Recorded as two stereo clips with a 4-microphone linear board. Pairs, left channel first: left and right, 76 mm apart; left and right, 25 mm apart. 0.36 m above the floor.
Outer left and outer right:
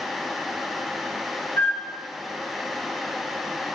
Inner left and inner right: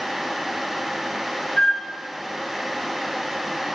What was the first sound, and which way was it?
A flute, 35° left (ahead or behind).